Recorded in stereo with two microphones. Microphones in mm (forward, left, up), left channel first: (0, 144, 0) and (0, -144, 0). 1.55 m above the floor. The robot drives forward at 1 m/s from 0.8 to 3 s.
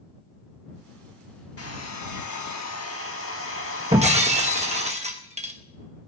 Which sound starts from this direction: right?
Breaking glass, at 3.9 s.